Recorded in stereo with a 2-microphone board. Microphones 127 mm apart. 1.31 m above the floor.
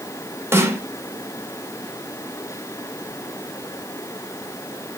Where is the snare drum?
20° right (ahead or behind), 1.8 m.